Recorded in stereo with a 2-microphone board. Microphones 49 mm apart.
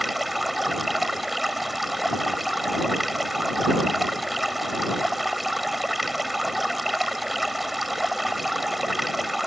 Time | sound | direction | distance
0.0 | running water | centre (ahead or behind) | ?